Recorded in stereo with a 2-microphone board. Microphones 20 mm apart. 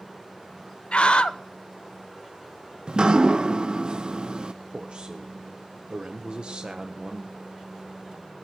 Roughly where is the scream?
Left.